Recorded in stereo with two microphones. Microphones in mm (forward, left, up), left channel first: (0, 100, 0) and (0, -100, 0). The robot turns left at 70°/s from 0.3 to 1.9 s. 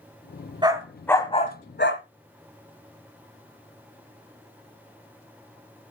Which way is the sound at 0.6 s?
20° right (ahead or behind).